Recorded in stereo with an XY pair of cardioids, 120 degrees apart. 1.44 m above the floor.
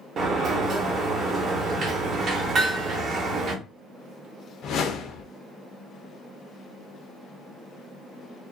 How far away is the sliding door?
About 0.8 m.